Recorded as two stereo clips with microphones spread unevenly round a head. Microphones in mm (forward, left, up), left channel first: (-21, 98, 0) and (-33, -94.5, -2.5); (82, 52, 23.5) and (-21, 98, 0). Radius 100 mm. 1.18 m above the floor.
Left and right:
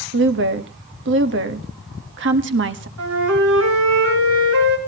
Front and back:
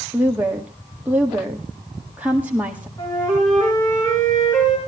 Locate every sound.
0.1 s a woman speaking: 120° right, 1.6 m
3.0 s a flute: 95° right, 4.5 m